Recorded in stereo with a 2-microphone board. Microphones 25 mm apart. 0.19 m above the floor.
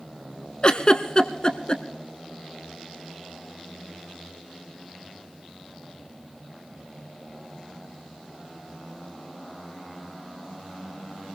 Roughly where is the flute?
No flute in this recording.